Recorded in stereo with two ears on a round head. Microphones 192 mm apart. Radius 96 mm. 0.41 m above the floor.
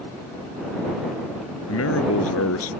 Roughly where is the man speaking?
Left.